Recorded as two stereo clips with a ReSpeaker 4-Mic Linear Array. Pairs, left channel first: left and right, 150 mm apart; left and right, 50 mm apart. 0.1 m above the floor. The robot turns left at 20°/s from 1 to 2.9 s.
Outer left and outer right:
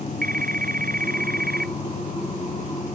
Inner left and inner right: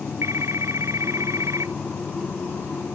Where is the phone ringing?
70° right (ahead or behind); by 1.8 s 80° right.